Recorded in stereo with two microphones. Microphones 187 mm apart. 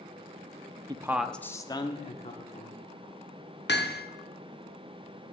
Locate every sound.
0.9 s a man speaking: 25° right (ahead or behind), 0.6 m; by 2.8 s 40° left (ahead or behind), 1.6 m
3.7 s hammering: 65° left (ahead or behind), 0.8 m